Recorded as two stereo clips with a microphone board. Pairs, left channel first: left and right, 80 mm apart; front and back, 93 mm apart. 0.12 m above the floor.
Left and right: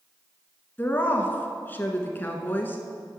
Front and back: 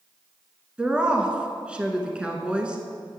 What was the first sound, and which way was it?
A woman speaking, 115° left.